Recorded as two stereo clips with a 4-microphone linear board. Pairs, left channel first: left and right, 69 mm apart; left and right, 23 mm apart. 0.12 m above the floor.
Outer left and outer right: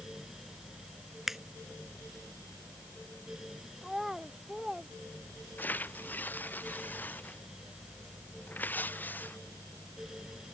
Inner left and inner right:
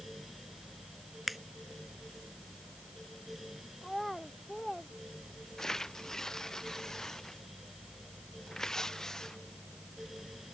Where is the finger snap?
5° right (ahead or behind).